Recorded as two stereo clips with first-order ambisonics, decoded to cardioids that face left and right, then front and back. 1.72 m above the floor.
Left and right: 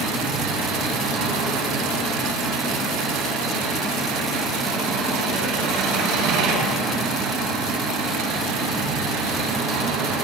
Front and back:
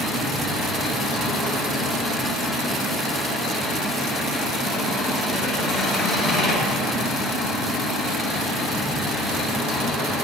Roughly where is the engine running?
Right.